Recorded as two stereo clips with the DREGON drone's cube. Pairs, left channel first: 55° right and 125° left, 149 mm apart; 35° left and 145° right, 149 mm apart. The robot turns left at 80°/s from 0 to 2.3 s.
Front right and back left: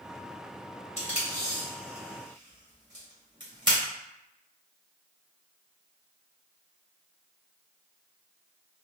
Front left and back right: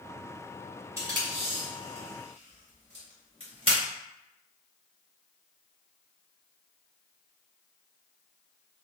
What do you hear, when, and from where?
1.0 s tape being pulled: 75° right, 1.9 m; by 3.8 s 175° left, 1.9 m